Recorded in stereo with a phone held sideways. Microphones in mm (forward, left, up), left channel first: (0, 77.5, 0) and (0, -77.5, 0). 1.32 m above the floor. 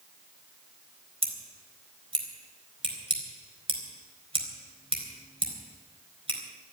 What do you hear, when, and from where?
1.2 s scissors: 40° right (ahead or behind), 4 m